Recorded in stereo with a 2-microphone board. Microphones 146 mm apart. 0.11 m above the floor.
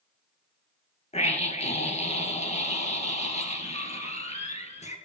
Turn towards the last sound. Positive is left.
turn(degrees=45)  # may be behind; listen again after turning